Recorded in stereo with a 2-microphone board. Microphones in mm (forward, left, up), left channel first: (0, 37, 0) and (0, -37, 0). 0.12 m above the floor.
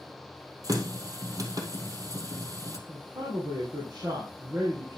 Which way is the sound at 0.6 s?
55° right (ahead or behind).